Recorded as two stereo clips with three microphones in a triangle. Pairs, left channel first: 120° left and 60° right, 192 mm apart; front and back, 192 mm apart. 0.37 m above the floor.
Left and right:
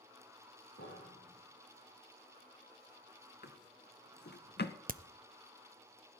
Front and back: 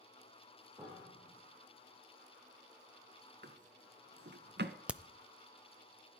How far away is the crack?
About 0.5 m.